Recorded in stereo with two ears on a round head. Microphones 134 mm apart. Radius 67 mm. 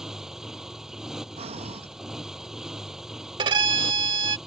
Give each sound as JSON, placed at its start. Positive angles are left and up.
{"t": 0.0, "sound": "a motorcycle", "side_deg": -5}
{"t": 1.4, "sound": "breathing", "side_deg": -40}
{"t": 3.4, "sound": "a violin", "side_deg": -30}